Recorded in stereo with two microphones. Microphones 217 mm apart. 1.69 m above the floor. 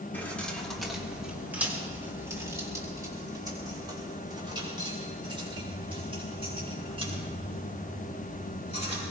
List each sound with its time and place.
0.1 s keys jangling: 10° left (ahead or behind), 2.5 m; by 9.0 s 30° right (ahead or behind), 9.5 m